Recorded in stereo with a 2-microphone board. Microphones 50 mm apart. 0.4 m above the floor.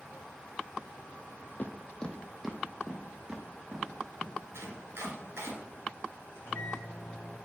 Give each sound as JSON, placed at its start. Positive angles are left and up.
{"t": 1.6, "sound": "footsteps", "side_deg": 45, "distance_m": 0.6}
{"t": 4.5, "sound": "chopping", "side_deg": -70, "distance_m": 2.0}
{"t": 6.3, "sound": "a microwave", "side_deg": 65, "distance_m": 3.0}